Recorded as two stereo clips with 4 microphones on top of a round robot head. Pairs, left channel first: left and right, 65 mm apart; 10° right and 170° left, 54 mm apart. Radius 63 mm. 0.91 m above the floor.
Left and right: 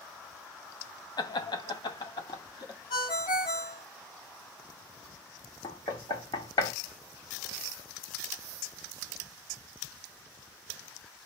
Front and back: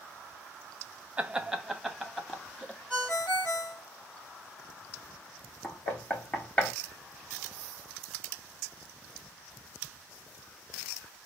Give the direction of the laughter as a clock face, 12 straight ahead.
8 o'clock.